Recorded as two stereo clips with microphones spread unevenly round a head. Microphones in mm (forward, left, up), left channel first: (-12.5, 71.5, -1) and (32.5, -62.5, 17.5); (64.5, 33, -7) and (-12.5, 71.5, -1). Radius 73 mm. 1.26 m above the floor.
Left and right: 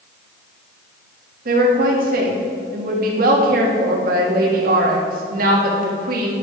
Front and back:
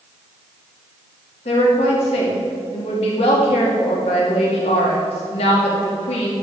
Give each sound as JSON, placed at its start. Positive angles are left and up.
{"t": 1.4, "sound": "a woman speaking", "azimuth_deg": -45, "distance_m": 2.0}